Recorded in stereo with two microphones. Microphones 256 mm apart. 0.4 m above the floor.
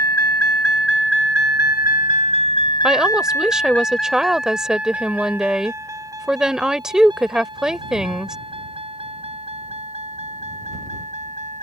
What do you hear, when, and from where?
0.0 s a vehicle: 70° left (ahead or behind); by 11.6 s 25° right (ahead or behind)
2.8 s a woman speaking: 5° right (ahead or behind)